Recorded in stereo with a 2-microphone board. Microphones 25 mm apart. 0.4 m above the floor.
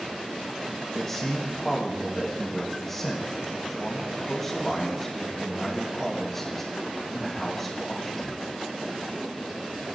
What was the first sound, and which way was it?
A man speaking, 20° left (ahead or behind).